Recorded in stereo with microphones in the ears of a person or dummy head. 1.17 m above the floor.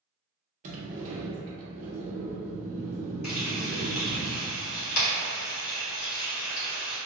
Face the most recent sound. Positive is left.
turn(degrees=85)